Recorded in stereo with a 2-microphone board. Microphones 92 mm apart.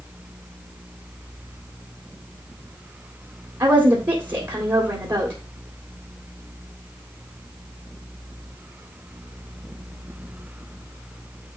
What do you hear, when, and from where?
3.6 s a woman speaking: 50° right (ahead or behind), 2.0 m